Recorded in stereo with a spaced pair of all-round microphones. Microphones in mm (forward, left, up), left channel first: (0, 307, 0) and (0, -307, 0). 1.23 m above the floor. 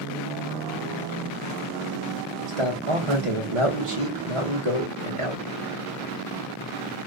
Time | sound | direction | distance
2.5 | a man speaking | 55° right (ahead or behind) | 1.2 m